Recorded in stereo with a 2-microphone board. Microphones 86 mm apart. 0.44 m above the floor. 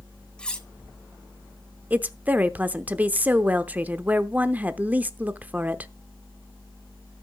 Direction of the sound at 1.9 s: 20° right (ahead or behind).